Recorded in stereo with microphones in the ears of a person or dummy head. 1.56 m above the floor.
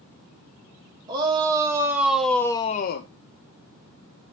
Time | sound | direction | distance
1.1 | a shout | 25° right (ahead or behind) | 2 m